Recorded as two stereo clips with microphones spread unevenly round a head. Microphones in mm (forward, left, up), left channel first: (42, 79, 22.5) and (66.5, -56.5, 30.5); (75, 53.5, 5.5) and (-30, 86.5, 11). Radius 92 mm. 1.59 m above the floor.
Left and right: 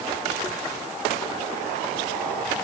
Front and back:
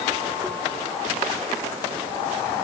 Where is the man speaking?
I don't hear a man speaking.